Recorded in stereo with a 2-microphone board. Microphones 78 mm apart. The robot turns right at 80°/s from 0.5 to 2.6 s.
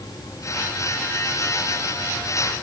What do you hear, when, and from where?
Only background noise.